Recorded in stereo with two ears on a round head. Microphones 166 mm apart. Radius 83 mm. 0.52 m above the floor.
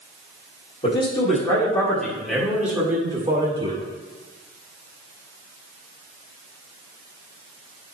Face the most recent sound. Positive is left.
turn(degrees=-25)  # may be behind; listen again after turning